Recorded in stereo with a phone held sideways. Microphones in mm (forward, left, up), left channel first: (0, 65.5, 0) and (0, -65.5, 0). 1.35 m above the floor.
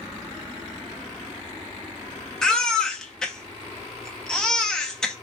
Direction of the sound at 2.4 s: 5° left (ahead or behind).